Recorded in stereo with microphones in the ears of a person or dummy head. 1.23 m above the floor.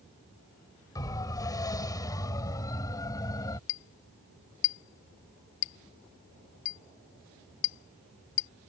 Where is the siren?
25° left (ahead or behind); by 3.6 s 20° left (ahead or behind).